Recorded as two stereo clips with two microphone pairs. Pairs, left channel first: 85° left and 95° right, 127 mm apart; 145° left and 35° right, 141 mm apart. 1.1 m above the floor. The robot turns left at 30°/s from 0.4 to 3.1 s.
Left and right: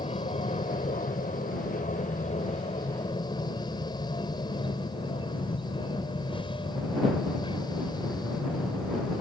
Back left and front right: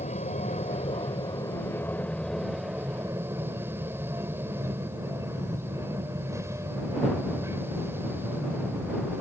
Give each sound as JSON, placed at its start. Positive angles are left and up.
{"t": 0.0, "sound": "an aircraft", "azimuth_deg": 115}